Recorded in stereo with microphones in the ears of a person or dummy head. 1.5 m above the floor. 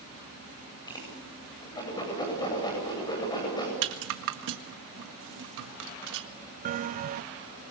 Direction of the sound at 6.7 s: 35° right (ahead or behind).